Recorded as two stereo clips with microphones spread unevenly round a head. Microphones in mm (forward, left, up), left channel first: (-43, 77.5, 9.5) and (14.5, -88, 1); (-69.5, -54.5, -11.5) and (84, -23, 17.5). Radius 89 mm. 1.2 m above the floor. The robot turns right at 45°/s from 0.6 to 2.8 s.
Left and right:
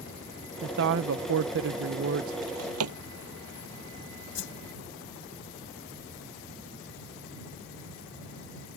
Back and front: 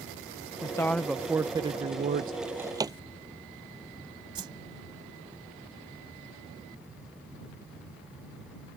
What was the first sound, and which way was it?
A woman speaking, 105° right.